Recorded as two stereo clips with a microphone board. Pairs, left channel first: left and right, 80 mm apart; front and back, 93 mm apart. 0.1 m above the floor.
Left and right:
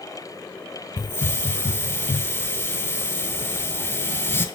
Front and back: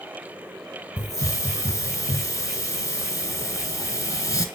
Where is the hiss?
40° left, 0.6 m.